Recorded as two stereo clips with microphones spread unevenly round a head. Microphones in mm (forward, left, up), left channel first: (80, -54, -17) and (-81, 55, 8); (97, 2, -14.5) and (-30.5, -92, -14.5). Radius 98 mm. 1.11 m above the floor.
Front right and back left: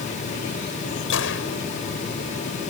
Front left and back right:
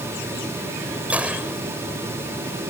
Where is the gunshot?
60° right.